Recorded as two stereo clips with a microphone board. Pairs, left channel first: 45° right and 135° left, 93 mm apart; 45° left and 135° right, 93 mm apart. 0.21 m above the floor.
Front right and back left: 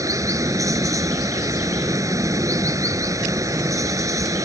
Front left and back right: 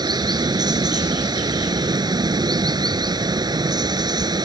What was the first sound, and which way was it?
Running water, 175° right.